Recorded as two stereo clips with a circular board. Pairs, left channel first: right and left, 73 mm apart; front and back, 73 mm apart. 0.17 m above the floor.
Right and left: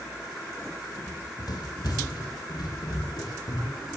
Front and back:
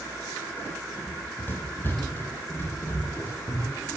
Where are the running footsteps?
60° right, 8.5 m; by 3.9 s 65° right, 11.5 m.